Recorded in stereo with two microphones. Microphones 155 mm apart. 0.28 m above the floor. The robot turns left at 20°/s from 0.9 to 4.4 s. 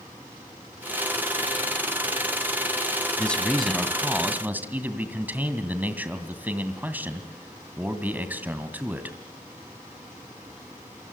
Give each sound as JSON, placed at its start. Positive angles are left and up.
{"t": 3.2, "sound": "a man speaking", "side_deg": 10, "distance_m": 2.5}